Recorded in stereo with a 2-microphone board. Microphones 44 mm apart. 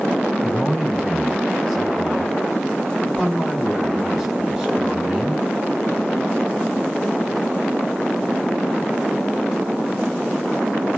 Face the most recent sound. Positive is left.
turn(degrees=-10)  # may be behind; listen again after turning